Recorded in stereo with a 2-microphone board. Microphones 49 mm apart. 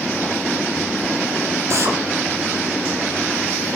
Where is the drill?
60° right (ahead or behind), 5 m.